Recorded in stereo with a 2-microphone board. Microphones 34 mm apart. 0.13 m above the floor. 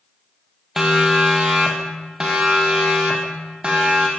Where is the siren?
15° right (ahead or behind), 3.5 m; by 4.1 s 30° right (ahead or behind), 5 m.